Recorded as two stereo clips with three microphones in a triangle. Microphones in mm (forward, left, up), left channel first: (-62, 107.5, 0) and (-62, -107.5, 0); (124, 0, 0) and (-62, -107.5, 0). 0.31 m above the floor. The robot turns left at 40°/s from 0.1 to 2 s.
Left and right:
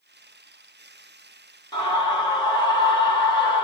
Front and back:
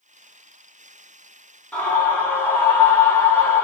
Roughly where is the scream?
Left.